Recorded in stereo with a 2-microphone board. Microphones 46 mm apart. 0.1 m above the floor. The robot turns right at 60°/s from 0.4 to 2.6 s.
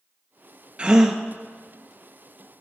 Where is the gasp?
25° right (ahead or behind), 0.8 m; by 1.2 s 10° right (ahead or behind), 0.8 m.